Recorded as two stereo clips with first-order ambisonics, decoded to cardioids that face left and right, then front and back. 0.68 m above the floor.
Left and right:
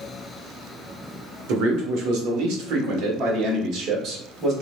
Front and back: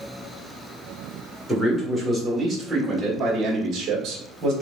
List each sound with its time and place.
1.5 s a man speaking: 85° right, 1.8 m; by 4.5 s 145° right, 1.6 m